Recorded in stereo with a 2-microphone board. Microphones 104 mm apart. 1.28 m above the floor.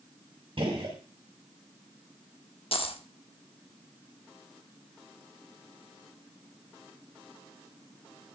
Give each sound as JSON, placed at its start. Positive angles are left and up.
{"t": 0.6, "sound": "a gunshot", "side_deg": -55, "distance_m": 3.0}
{"t": 2.7, "sound": "a dropped coin", "side_deg": 60, "distance_m": 1.3}